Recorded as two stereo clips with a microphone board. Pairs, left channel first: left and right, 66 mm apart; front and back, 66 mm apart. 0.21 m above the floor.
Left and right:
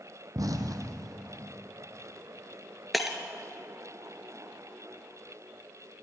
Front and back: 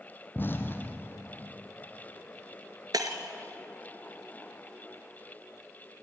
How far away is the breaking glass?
About 1.6 m.